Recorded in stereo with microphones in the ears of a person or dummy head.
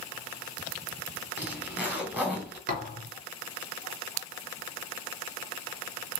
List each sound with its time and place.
1.4 s a zipper: 10° right (ahead or behind), 3 m
2.7 s a thud: 45° right (ahead or behind), 3.5 m